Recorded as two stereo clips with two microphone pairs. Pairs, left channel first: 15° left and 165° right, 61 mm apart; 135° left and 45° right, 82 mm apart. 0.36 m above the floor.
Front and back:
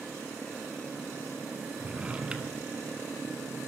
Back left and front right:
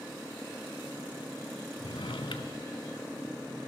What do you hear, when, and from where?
1.8 s a drawer: 125° left, 0.9 m